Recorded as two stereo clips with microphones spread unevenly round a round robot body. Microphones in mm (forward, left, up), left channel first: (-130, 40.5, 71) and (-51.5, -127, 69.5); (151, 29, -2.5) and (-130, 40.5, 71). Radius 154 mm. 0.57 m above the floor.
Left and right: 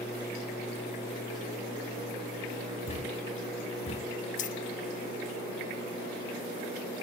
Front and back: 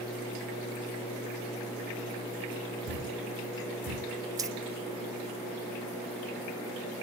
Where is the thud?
170° left, 1.4 m.